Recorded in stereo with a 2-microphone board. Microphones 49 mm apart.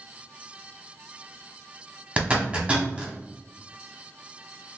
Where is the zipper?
25° right (ahead or behind), 1.0 m.